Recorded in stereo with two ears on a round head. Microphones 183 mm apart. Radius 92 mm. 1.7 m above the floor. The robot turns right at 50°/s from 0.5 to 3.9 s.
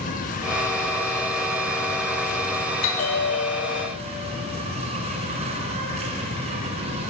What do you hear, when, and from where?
0.0 s an insect: 45° left, 4.5 m; by 7.1 s 145° right, 4.5 m
2.8 s a bell: 70° left, 3.5 m; by 3.9 s 125° left, 3.5 m